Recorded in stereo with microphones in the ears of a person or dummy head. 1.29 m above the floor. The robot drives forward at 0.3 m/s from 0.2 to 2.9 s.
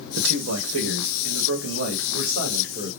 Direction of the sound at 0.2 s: 80° right.